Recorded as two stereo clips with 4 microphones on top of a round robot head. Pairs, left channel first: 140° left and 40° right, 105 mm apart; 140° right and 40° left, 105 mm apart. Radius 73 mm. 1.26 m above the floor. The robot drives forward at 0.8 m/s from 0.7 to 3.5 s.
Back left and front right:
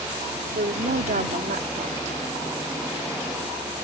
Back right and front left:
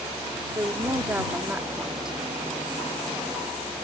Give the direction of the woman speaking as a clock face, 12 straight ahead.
1 o'clock.